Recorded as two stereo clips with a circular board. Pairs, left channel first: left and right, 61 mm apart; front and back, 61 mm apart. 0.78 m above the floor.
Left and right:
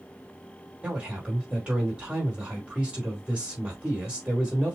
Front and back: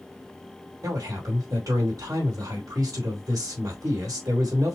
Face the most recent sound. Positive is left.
turn(degrees=-160)